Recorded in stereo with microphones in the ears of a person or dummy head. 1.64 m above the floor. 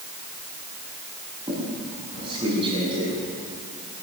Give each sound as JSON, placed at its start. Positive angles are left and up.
{"t": 1.5, "sound": "a squeak", "side_deg": -30, "distance_m": 6.5}